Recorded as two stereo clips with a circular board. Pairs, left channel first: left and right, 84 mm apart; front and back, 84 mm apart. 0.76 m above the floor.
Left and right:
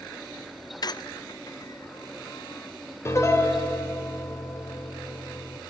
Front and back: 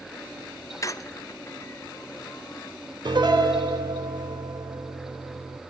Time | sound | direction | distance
0.8 | a squeak | 50° left | 0.5 m
3.0 | a piano | 150° left | 2 m